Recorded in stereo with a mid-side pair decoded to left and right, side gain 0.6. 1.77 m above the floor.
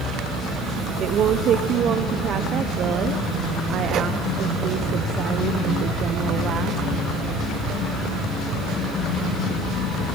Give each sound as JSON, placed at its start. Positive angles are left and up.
{"t": 1.0, "sound": "a woman speaking", "azimuth_deg": -50, "distance_m": 1.3}